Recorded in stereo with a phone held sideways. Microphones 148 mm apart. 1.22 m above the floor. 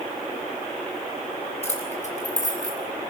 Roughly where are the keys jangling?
Left.